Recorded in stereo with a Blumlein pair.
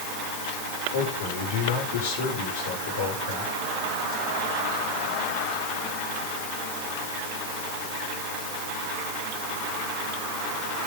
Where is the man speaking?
55° left, 5.5 m.